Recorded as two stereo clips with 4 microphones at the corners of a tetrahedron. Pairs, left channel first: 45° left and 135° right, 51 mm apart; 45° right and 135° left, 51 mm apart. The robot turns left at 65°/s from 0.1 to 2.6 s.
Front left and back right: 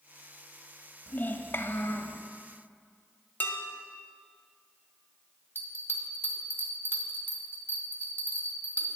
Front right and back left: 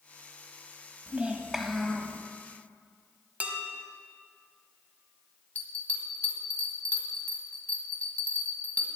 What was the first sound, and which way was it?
A child speaking, 90° left.